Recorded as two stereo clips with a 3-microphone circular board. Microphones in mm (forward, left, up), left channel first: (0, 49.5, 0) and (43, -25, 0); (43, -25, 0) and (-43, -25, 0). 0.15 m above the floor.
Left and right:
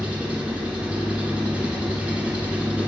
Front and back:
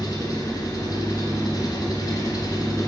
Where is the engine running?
10° left, 1.3 m.